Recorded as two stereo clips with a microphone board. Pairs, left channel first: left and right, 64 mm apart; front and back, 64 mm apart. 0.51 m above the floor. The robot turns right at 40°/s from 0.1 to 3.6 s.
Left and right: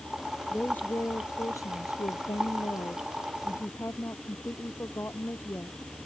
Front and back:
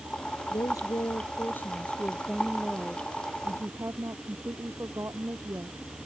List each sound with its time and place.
0.5 s a woman speaking: 15° left; by 5.8 s 140° left